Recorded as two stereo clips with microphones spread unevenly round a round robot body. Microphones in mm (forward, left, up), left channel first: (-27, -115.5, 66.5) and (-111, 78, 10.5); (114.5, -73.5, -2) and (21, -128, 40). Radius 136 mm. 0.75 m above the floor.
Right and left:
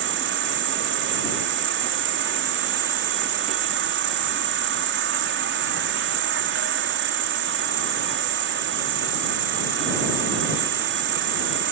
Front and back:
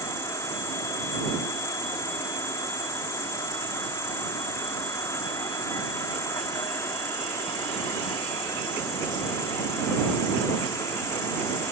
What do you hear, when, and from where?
0.0 s an insect: 95° left